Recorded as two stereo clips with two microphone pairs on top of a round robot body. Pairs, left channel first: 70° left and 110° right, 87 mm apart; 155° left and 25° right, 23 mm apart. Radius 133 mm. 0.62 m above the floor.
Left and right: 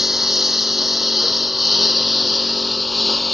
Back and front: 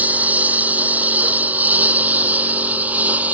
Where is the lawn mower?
20° right.